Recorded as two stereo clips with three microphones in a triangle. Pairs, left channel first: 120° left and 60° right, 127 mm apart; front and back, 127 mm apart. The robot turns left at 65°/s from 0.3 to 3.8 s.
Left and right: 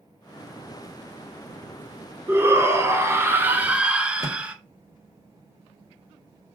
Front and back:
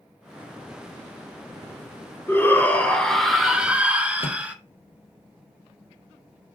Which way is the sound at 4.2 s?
5° right.